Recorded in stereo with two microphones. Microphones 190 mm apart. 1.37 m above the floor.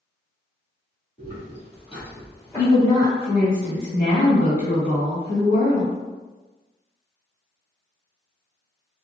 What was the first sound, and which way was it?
Footsteps, 45° left (ahead or behind).